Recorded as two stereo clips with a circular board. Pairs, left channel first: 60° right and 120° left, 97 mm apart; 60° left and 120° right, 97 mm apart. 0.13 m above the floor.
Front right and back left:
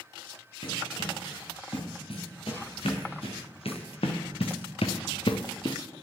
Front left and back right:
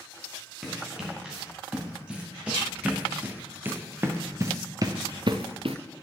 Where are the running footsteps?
35° right, 3.5 m; by 5.8 s 100° right, 0.9 m.